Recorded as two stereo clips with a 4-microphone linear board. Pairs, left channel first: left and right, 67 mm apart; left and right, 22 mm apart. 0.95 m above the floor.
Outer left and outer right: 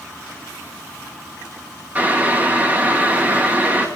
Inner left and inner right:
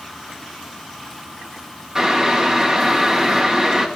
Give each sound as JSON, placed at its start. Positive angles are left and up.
{"t": 1.9, "sound": "boiling", "side_deg": -25, "distance_m": 1.3}